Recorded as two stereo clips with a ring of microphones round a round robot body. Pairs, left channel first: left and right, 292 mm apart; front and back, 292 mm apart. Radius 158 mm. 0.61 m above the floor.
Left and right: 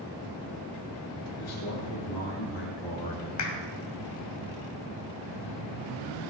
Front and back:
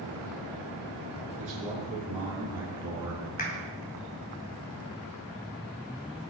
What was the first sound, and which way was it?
A man speaking, 110° left.